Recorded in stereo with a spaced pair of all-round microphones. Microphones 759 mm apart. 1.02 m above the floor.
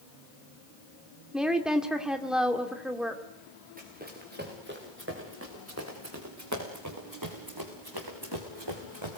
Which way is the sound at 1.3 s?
Centre (ahead or behind).